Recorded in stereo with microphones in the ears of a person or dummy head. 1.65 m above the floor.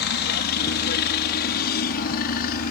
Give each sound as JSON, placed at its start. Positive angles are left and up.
{"t": 0.0, "sound": "a helicopter", "side_deg": 55}